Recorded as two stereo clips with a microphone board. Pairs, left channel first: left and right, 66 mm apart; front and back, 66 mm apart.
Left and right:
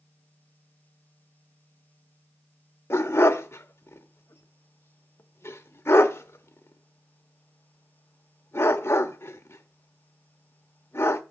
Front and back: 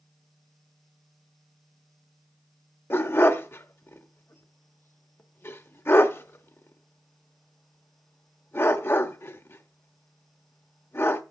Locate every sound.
2.9 s a dog barking: 45° left, 1.0 m